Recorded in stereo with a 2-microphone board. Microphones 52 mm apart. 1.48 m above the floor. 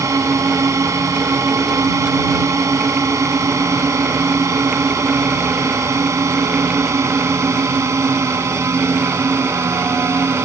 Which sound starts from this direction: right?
A drone, at 0.0 s.